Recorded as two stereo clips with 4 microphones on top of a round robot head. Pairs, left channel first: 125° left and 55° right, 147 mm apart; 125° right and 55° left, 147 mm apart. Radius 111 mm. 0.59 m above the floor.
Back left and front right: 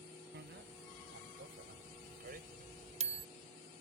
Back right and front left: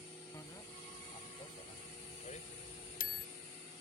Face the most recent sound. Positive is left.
turn(degrees=-110)